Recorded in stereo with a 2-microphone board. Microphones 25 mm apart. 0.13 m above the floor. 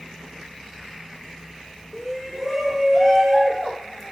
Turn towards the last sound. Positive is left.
turn(degrees=15)  # may be behind; listen again after turning